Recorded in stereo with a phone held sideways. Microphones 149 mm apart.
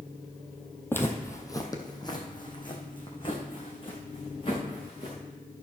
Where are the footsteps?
15° left (ahead or behind), 1.2 m; by 5.2 s 40° left (ahead or behind), 4 m.